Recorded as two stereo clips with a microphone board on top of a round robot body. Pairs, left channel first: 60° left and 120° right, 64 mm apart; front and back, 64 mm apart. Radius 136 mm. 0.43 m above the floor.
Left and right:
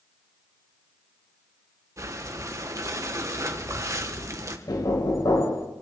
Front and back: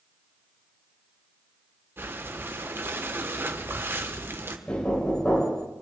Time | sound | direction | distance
2.0 | breathing | 135° right | 1.8 m
4.7 | knocking | 75° left | 2.5 m